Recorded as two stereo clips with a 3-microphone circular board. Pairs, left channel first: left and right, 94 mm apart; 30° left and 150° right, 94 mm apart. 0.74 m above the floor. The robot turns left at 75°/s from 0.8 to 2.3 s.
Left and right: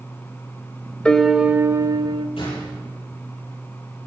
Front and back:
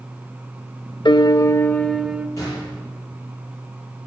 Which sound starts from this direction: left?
A gunshot, at 2.4 s.